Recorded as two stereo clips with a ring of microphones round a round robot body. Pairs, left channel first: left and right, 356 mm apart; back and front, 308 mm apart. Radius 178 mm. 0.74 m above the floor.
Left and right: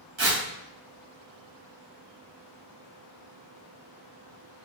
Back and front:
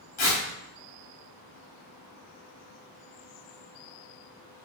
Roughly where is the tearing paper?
Behind right.